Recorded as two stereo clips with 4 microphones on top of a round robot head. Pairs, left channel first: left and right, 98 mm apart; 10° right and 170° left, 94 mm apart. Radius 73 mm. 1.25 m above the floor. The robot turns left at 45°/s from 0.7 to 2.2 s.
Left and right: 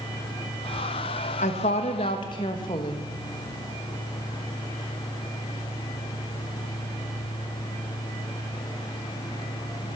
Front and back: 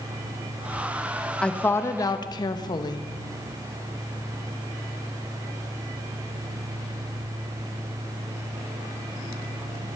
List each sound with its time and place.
1.4 s a woman speaking: 70° left, 1.2 m; by 3.1 s 35° left, 1.2 m